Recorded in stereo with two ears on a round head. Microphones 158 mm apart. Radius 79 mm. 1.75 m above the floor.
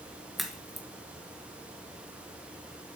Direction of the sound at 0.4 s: Centre (ahead or behind).